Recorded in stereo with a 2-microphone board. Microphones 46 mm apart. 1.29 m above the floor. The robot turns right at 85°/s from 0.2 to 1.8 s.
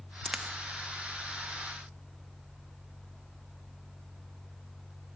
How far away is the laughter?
No laughter in this recording.